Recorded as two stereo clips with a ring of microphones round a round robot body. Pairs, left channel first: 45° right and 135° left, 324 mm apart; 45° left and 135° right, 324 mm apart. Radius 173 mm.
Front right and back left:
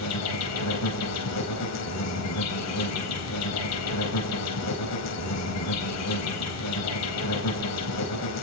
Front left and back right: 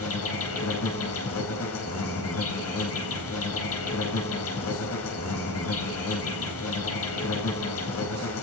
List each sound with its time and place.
0.0 s an insect: 5° right, 4.5 m